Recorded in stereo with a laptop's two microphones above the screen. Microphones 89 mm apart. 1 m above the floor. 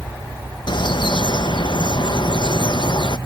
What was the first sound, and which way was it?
A bird, 60° left (ahead or behind).